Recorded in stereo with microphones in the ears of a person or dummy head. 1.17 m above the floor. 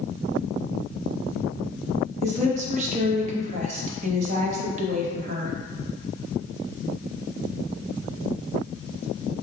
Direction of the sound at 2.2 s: 50° right (ahead or behind).